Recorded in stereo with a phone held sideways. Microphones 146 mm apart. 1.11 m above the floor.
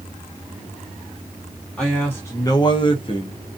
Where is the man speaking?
5° left (ahead or behind), 0.8 m; by 3.4 s 35° left (ahead or behind), 0.9 m.